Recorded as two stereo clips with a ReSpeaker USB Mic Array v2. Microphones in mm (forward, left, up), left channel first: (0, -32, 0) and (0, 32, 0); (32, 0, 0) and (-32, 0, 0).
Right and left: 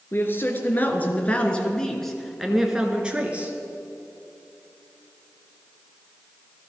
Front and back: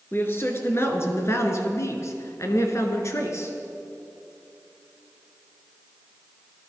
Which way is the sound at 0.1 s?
50° right.